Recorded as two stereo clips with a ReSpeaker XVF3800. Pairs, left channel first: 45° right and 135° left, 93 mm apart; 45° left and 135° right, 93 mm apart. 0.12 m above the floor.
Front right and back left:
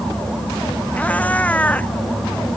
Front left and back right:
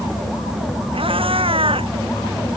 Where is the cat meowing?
120° right.